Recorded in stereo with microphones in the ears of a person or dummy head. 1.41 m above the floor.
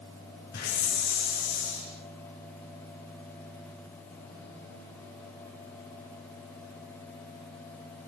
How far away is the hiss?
About 8.5 m.